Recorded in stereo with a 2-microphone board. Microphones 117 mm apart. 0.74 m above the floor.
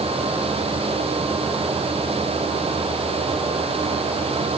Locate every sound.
Only background noise.